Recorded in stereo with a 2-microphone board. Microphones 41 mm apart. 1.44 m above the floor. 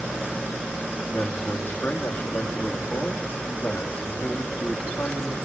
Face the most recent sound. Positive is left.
turn(degrees=50)  # may be behind; listen again after turning